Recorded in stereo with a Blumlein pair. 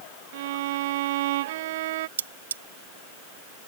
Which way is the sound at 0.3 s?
55° right.